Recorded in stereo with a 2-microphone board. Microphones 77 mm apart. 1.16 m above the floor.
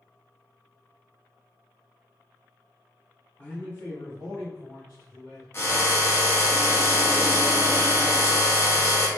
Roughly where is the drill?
Left.